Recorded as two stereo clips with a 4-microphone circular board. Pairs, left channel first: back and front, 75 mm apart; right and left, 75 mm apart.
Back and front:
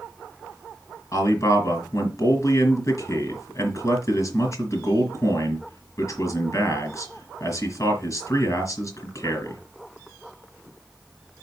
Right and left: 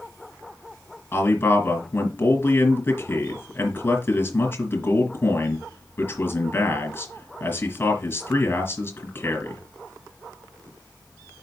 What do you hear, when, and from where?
1.1 s a man speaking: 145° right, 3 m